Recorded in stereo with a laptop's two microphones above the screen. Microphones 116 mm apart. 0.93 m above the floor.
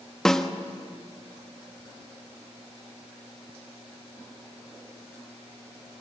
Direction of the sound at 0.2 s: 5° left (ahead or behind).